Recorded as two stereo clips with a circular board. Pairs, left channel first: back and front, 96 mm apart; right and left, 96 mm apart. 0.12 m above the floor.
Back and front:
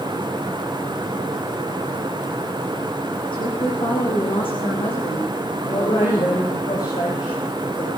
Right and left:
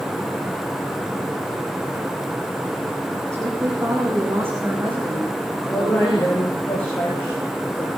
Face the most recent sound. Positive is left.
turn(degrees=-155)